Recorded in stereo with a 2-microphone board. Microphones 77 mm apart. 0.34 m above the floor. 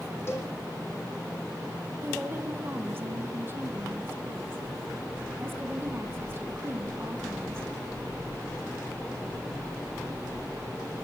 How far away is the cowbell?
About 4.5 m.